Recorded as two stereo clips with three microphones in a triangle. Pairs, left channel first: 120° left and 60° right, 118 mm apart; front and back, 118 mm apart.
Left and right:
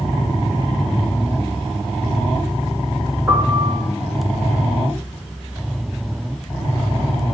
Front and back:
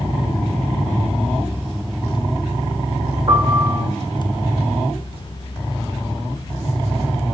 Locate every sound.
3.3 s a piano: 130° right, 4.5 m